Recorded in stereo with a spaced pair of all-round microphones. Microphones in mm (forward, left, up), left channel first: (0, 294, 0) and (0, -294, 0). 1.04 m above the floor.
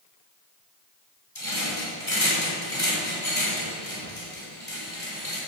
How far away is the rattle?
About 6 m.